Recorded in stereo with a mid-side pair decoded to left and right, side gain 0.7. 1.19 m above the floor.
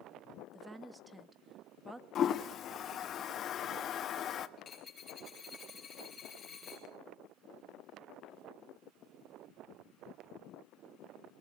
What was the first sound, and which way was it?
A woman speaking, 10° right.